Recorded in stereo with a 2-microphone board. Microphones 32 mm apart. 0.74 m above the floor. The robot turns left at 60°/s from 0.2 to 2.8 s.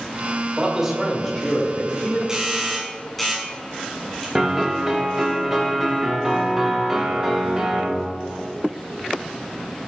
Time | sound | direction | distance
0.6 | a man speaking | 160° right | 2 m
2.3 | a doorbell | 20° right (ahead or behind) | 2 m
4.3 | a piano | 15° right (ahead or behind) | 0.9 m